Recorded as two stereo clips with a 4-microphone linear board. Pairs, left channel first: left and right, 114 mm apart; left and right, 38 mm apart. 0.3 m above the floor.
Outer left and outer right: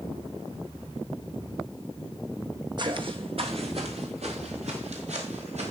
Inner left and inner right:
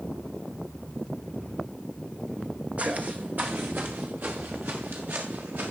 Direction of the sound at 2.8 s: 40° right (ahead or behind).